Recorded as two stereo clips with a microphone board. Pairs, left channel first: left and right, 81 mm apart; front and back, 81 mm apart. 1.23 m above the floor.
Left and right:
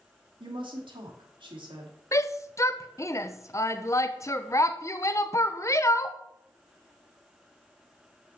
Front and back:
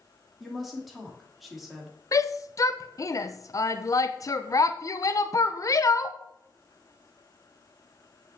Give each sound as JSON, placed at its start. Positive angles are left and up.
{"t": 0.4, "sound": "a woman speaking", "azimuth_deg": -90, "distance_m": 3.0}
{"t": 2.1, "sound": "a shout", "azimuth_deg": 40, "distance_m": 0.8}